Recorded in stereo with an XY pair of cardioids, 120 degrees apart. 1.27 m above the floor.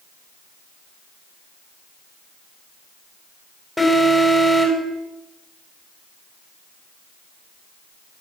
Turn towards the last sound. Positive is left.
turn(degrees=5)